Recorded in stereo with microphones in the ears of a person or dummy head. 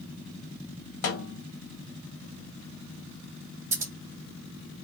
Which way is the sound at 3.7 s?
25° right (ahead or behind).